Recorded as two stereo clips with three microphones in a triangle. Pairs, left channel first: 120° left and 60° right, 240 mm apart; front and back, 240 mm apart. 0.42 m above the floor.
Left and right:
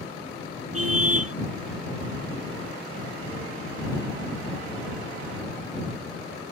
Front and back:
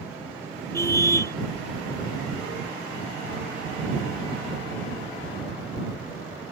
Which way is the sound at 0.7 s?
80° right.